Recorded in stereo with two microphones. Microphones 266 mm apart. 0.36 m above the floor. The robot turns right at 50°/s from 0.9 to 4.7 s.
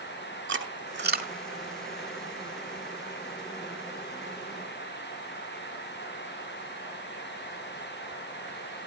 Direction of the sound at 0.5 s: 45° right (ahead or behind).